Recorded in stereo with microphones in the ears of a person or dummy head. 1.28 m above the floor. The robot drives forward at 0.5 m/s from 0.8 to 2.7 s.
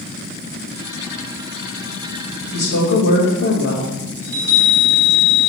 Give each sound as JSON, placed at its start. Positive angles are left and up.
{"t": 2.5, "sound": "a woman speaking", "side_deg": 55, "distance_m": 1.8}
{"t": 4.2, "sound": "a chime", "side_deg": -15, "distance_m": 3.0}